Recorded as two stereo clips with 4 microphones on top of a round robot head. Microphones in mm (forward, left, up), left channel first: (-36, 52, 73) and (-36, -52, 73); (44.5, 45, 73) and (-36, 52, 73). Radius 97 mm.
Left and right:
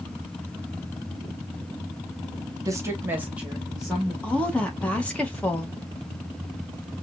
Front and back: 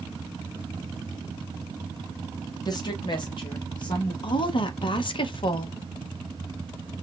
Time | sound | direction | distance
2.6 | a woman speaking | 35° right | 1.1 m
4.2 | a woman speaking | 10° left | 0.8 m